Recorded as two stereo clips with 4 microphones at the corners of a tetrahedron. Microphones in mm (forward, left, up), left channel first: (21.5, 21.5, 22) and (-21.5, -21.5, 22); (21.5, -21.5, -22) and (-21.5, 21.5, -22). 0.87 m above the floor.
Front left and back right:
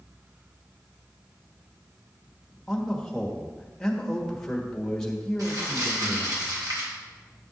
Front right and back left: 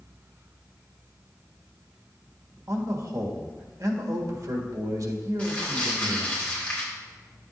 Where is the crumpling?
115° right, 2.5 m.